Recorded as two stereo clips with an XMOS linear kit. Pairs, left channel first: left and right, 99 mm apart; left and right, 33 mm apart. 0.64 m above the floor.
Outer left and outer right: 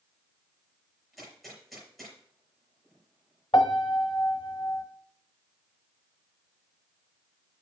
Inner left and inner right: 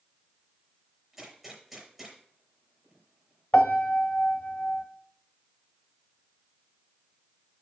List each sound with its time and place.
1.1 s a gunshot: centre (ahead or behind), 5 m
3.5 s a piano: 55° left (ahead or behind), 1.1 m